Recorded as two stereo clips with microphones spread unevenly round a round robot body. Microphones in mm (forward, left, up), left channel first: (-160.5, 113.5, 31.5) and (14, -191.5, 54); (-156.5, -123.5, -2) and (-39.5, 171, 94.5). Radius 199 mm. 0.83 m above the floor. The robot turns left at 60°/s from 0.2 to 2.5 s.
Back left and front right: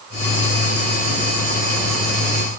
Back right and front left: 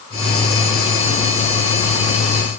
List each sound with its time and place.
Only background noise.